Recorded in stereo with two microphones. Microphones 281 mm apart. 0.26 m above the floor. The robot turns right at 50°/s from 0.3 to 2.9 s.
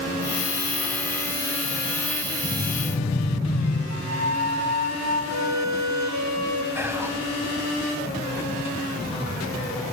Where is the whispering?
10° right (ahead or behind), 1.8 m.